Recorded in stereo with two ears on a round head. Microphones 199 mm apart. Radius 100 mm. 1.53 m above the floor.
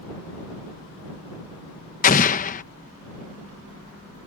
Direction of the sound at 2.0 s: 35° left (ahead or behind).